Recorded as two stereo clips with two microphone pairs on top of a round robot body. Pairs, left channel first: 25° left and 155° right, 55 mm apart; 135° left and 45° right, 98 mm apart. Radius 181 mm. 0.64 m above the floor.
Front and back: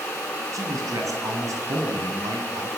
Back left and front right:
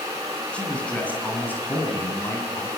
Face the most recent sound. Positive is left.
turn(degrees=-160)